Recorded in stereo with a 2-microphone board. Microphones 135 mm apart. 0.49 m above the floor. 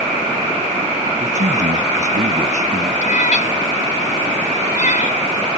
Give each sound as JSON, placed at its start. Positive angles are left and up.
{"t": 1.2, "sound": "a man speaking", "side_deg": -70}
{"t": 3.0, "sound": "a cat meowing", "side_deg": 70}